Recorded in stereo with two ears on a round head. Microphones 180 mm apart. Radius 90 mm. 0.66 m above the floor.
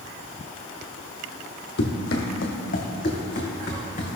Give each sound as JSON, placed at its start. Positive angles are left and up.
{"t": 1.8, "sound": "running footsteps", "side_deg": 55, "distance_m": 1.3}